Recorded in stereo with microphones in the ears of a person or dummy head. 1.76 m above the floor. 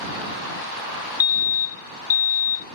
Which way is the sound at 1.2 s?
25° left (ahead or behind).